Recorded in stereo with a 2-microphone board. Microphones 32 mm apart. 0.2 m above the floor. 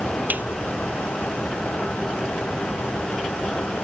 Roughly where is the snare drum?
Right.